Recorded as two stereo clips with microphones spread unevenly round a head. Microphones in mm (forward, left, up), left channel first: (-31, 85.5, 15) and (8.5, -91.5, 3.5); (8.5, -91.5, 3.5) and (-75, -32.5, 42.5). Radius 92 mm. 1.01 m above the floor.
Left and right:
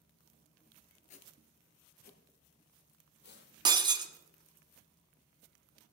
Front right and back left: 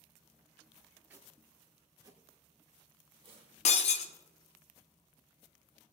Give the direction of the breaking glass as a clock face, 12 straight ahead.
12 o'clock.